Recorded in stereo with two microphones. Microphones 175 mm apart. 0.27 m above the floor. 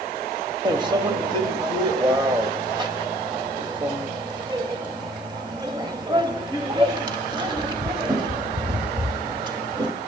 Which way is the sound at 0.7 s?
25° right (ahead or behind).